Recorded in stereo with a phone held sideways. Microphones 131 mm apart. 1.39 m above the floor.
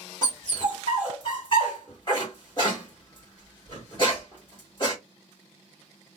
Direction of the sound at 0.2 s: 35° left (ahead or behind).